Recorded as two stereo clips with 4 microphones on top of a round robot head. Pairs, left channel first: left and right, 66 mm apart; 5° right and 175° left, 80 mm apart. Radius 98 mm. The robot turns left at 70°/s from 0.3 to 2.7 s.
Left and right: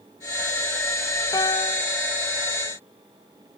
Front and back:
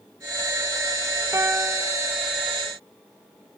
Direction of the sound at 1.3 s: 120° left.